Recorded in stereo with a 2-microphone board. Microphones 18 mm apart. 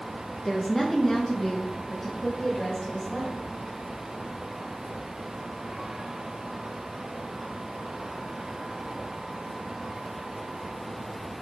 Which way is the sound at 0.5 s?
10° left (ahead or behind).